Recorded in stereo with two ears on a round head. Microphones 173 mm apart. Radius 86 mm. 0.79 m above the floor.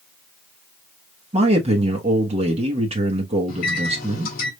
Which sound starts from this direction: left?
A microwave, at 3.5 s.